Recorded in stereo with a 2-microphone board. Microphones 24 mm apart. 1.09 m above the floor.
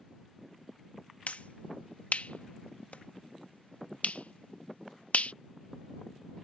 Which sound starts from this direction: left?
A finger snap, at 1.3 s.